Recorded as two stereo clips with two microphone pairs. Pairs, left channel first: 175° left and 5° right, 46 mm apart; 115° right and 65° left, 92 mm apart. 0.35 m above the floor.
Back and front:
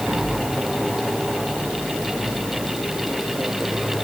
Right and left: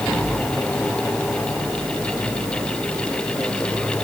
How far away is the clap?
No clap in this recording.